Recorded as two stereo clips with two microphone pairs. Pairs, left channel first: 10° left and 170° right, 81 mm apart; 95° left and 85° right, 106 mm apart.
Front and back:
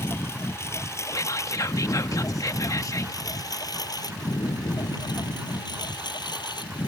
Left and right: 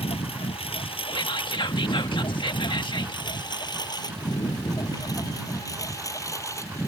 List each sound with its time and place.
0.0 s a lawn mower: 70° left; by 6.9 s 30° left
1.1 s whispering: 55° left